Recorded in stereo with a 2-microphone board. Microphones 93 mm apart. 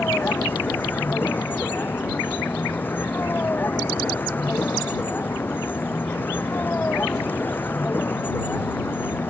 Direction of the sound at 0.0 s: 20° left (ahead or behind).